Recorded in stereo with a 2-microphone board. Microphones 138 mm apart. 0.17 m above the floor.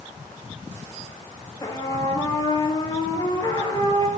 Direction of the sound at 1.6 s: 25° left (ahead or behind).